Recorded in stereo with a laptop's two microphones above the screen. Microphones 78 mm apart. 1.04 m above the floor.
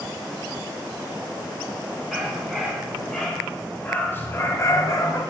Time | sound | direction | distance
2.1 | a dog barking | 5° right (ahead or behind) | 4 m